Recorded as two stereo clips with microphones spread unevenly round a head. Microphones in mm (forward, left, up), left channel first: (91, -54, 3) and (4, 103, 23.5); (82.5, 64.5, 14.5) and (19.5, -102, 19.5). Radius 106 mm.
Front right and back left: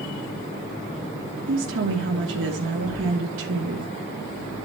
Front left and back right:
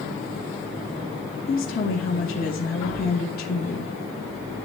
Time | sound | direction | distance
1.5 | a woman speaking | 120° left | 1.3 m